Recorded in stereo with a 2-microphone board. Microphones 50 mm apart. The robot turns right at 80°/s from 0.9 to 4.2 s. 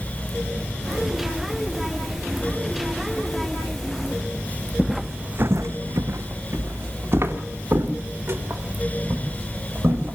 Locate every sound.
4.8 s footsteps: 5° left (ahead or behind), 0.9 m; by 10.2 s 40° right (ahead or behind), 6 m